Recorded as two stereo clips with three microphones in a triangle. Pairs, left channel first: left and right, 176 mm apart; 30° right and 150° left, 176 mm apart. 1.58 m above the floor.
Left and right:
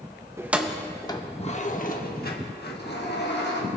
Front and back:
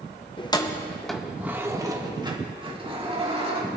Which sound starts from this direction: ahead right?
Keys jangling, at 0.4 s.